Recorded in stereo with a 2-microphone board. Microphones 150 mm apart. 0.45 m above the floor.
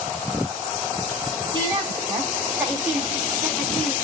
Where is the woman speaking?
20° right (ahead or behind), 1.5 m; by 3.9 s 5° left (ahead or behind), 1.1 m.